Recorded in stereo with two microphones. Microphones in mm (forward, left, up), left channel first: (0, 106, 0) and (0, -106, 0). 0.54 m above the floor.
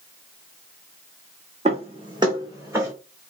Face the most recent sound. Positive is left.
turn(degrees=-10)  # may be behind; listen again after turning